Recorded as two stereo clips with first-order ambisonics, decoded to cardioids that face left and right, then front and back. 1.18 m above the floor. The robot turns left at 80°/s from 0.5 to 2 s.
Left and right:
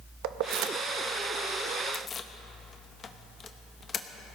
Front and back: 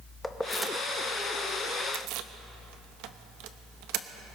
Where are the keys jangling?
85° right, 0.8 m; by 4.1 s 155° left, 0.8 m.